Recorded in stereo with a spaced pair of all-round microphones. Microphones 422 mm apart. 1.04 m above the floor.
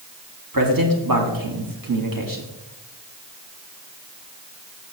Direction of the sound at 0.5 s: 50° right (ahead or behind).